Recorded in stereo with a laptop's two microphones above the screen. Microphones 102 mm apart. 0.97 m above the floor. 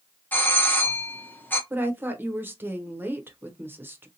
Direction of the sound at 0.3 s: 15° left (ahead or behind).